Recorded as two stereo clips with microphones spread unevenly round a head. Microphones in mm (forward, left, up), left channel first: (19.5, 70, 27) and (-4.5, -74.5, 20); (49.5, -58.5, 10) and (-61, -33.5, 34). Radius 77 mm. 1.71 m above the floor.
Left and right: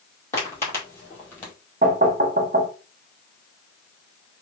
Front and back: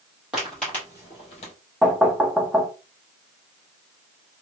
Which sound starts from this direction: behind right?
Knocking, at 1.8 s.